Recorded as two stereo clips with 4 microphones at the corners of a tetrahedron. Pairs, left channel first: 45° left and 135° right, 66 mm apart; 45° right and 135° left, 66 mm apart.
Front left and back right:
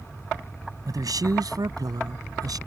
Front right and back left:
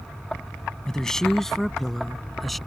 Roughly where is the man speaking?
Behind right.